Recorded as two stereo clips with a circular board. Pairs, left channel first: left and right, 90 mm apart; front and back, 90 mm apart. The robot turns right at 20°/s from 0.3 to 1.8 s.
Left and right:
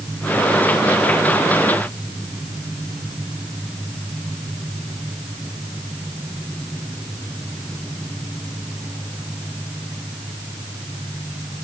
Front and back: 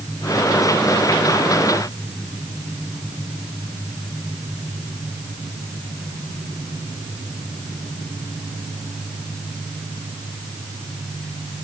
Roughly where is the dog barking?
No dog barking in this recording.